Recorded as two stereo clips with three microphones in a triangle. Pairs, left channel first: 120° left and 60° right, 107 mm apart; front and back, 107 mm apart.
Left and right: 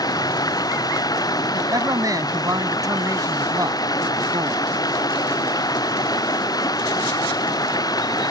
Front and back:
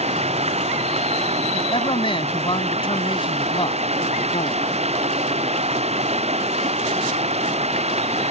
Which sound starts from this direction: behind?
Running water, at 0.0 s.